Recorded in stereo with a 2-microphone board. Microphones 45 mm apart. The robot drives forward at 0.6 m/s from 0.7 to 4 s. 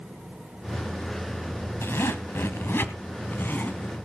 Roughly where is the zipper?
Left.